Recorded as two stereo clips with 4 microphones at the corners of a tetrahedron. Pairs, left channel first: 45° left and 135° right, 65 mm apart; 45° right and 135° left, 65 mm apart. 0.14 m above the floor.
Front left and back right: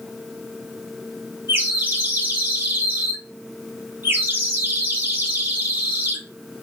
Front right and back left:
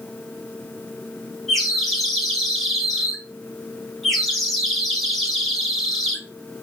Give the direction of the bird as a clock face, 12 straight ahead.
4 o'clock.